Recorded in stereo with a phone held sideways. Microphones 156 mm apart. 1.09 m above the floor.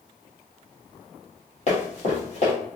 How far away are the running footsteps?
About 1.8 m.